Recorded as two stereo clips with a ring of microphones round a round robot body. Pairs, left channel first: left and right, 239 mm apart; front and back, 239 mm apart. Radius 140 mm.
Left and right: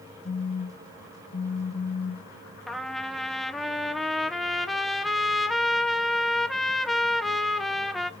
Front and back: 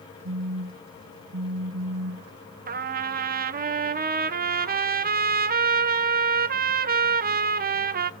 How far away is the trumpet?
About 0.6 m.